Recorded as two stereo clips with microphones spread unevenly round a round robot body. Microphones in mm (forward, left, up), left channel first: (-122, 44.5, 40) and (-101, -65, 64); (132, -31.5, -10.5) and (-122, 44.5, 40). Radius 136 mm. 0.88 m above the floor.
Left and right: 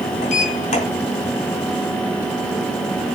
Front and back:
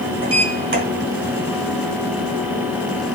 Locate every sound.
0.2 s a sliding door: 105° left, 2 m